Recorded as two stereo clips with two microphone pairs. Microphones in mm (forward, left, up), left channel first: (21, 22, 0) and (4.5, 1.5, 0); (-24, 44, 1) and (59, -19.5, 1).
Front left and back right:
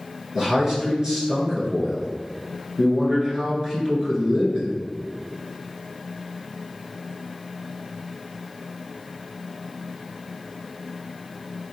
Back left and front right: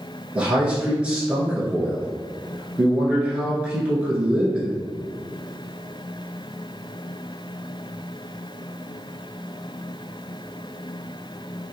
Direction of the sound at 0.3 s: 105° right.